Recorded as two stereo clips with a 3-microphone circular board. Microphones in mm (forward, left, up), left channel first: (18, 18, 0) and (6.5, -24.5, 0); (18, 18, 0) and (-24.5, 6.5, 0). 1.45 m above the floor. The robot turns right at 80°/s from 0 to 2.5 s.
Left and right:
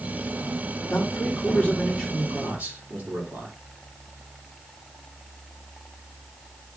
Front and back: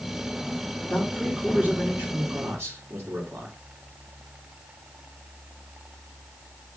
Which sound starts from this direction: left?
A man speaking, at 0.8 s.